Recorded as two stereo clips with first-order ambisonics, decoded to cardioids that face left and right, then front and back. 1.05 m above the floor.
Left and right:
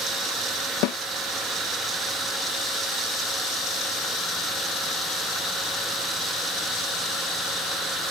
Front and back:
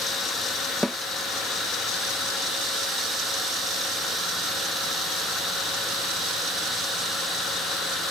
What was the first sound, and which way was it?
A snare drum, 90° left.